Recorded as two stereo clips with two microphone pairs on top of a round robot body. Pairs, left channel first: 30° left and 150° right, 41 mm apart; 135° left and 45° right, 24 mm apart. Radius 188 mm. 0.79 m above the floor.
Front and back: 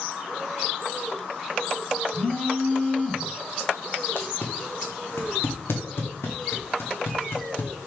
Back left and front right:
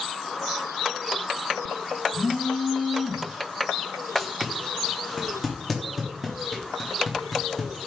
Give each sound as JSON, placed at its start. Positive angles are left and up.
{"t": 2.1, "sound": "a phone buzzing", "azimuth_deg": 65, "distance_m": 1.7}
{"t": 4.2, "sound": "tape being pulled", "azimuth_deg": 50, "distance_m": 0.6}